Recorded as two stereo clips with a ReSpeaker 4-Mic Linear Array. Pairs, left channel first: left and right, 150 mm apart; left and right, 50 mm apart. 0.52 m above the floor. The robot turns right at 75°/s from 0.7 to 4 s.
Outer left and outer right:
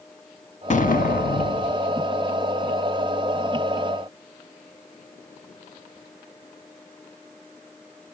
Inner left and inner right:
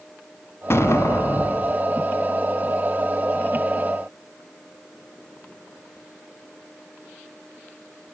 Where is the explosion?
55° left, 0.9 m; by 1.8 s 140° left, 0.9 m.